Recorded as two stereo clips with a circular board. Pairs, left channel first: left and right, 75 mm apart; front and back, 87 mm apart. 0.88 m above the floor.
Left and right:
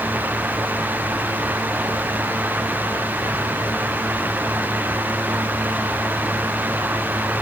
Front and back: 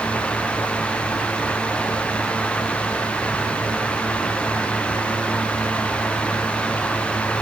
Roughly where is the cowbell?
No cowbell in this recording.